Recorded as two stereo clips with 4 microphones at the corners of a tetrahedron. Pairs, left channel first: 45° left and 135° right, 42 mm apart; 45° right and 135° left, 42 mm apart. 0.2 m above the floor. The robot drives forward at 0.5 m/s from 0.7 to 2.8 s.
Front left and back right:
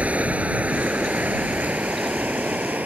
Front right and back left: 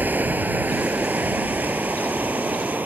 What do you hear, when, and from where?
0.0 s running water: 170° left; by 2.9 s 175° left